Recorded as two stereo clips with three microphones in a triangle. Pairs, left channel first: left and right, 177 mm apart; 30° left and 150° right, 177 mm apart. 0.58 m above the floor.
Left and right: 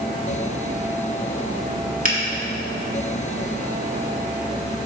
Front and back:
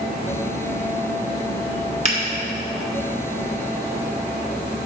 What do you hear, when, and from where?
2.0 s a finger snap: 105° right, 1.6 m